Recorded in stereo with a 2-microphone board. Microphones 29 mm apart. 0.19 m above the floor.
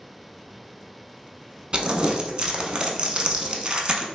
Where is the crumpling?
30° right (ahead or behind), 0.5 m.